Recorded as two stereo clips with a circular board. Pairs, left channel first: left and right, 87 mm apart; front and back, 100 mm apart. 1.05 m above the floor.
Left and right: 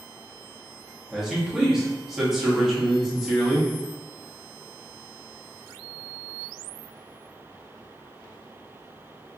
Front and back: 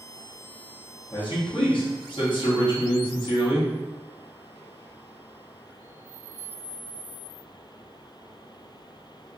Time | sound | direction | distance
1.1 | a man speaking | 5° right | 0.9 m